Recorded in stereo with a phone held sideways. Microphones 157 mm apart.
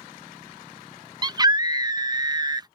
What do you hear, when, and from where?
1.2 s a scream: 25° right (ahead or behind)